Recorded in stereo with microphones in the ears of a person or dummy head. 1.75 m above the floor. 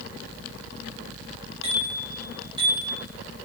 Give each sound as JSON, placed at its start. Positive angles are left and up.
{"t": 1.6, "sound": "a bicycle bell", "side_deg": -35, "distance_m": 6.0}